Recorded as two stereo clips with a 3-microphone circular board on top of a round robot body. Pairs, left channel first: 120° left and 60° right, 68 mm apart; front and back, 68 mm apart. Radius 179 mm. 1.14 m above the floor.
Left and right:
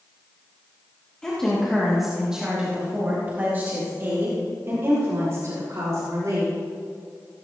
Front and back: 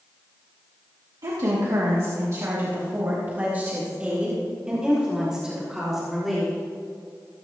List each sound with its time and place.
1.2 s a woman speaking: 165° right, 2.5 m; by 6.5 s 95° right, 5.5 m